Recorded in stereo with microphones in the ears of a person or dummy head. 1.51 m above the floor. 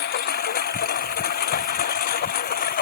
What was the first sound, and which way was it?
A lawn mower, 50° left (ahead or behind).